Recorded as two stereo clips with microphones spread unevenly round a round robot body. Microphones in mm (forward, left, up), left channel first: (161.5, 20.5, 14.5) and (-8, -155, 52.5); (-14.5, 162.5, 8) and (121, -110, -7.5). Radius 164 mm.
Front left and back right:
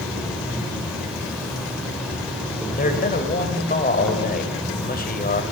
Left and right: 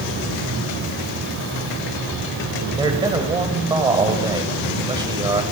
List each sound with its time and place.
0.0 s an insect: 40° right, 2.5 m
2.8 s a man speaking: 10° left, 1.8 m